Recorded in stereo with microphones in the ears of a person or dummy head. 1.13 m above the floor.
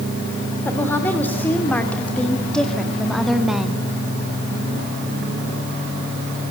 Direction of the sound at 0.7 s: 10° left (ahead or behind).